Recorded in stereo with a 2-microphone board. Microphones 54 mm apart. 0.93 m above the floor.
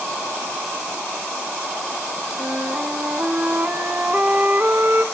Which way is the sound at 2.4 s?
35° right (ahead or behind).